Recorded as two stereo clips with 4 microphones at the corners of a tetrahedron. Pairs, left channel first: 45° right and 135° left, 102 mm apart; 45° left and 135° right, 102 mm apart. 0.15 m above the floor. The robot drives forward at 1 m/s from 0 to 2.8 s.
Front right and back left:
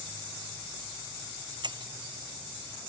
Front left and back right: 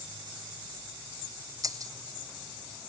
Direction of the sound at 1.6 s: 175° left.